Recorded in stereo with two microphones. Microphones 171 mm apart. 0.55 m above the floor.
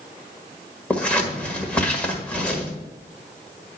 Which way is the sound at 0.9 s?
5° left (ahead or behind).